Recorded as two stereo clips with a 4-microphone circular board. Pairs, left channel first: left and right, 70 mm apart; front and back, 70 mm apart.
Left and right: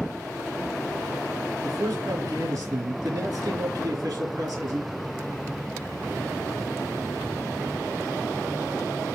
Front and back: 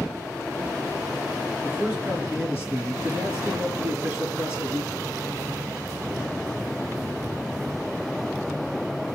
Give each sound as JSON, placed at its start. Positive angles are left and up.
{"t": 1.6, "sound": "a man speaking", "azimuth_deg": -110, "distance_m": 4.0}